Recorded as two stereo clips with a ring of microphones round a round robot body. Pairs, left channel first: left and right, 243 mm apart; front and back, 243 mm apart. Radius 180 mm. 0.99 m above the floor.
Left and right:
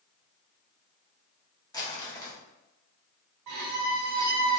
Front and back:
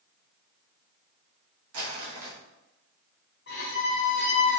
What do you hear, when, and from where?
1.7 s crumpling: 165° left, 1.6 m
3.5 s a violin: 60° right, 0.6 m